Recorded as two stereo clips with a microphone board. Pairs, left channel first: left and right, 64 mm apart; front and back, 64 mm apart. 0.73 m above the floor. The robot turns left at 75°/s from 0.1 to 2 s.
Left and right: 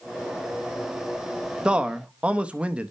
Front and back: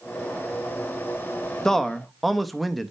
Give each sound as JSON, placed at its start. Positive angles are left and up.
{"t": 1.6, "sound": "a man speaking", "azimuth_deg": -60, "distance_m": 0.6}